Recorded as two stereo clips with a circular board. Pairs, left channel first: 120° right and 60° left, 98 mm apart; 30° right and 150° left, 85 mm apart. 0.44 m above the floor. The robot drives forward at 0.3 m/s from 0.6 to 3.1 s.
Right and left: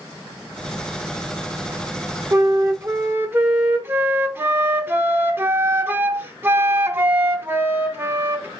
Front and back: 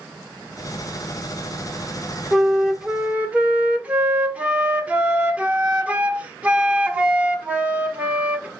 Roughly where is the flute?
Ahead left.